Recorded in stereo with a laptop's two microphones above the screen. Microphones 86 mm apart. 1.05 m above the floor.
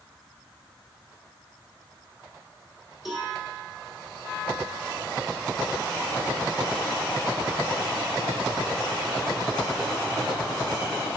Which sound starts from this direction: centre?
A cowbell, at 3.0 s.